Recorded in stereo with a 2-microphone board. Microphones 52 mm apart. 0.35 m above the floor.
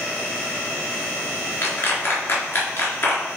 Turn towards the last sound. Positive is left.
turn(degrees=40)  # may be behind; listen again after turning